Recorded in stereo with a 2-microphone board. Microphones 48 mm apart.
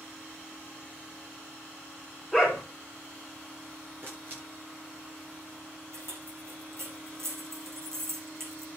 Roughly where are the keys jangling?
Right.